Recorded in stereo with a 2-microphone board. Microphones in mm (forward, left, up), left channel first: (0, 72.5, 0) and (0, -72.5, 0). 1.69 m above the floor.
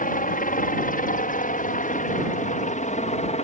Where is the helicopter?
70° left (ahead or behind); by 3.4 s 50° left (ahead or behind).